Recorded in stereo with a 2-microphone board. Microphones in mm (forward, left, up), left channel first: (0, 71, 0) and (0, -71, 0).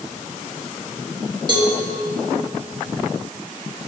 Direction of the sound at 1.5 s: 30° right (ahead or behind).